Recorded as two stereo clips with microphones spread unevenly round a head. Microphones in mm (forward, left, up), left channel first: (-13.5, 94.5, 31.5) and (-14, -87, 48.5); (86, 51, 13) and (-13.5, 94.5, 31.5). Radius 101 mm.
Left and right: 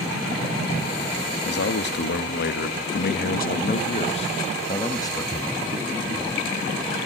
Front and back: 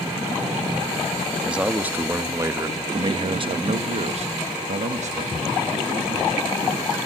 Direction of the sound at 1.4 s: 70° left.